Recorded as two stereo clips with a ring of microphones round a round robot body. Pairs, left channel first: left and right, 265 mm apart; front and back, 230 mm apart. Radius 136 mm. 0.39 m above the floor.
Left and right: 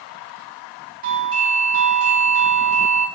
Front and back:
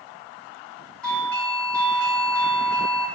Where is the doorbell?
85° right, 1.6 m.